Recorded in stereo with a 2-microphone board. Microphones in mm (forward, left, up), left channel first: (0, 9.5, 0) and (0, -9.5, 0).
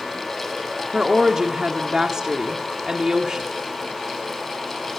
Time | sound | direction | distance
0.9 | a woman speaking | 35° right (ahead or behind) | 1.7 m